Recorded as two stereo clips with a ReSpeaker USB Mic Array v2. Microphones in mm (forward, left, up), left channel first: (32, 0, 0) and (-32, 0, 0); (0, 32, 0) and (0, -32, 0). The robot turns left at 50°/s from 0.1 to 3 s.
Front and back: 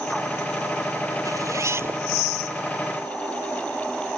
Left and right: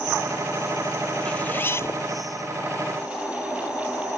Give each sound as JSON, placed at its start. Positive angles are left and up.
{"t": 1.2, "sound": "a zipper", "azimuth_deg": 160}